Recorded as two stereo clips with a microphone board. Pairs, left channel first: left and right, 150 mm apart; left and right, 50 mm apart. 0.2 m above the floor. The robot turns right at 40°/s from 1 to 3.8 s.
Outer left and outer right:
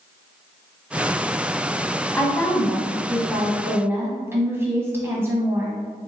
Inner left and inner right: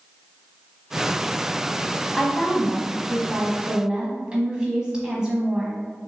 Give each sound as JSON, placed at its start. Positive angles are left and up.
{"t": 2.1, "sound": "a woman speaking", "side_deg": 15, "distance_m": 1.2}